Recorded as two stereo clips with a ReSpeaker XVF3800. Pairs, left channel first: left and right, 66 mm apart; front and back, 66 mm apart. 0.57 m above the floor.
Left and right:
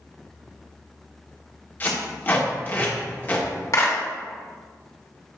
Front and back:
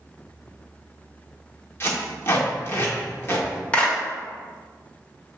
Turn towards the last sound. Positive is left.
turn(degrees=65)